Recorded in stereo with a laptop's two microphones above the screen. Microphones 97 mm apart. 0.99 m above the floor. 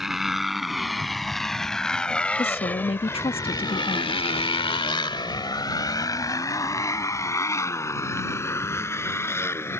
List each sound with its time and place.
0.0 s a motorcycle: 5° right (ahead or behind); by 9.8 s 25° left (ahead or behind)
2.4 s a woman speaking: 75° left (ahead or behind)